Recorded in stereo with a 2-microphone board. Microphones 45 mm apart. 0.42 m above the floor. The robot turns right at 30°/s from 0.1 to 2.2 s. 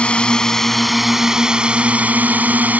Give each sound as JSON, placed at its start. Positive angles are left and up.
{"t": 0.0, "sound": "a drone", "azimuth_deg": 155}